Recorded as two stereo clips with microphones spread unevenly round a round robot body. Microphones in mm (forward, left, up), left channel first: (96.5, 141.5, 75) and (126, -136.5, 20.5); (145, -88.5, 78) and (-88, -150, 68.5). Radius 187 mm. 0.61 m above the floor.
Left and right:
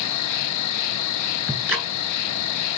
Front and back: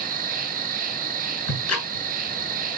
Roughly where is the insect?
Behind left.